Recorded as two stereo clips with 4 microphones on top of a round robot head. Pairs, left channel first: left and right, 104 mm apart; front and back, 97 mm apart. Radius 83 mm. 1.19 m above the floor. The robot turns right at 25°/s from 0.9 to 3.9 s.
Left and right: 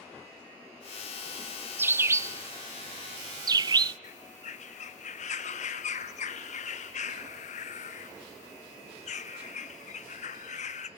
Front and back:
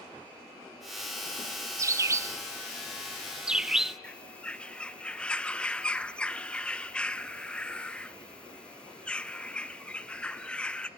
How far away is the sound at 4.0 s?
About 1.0 m.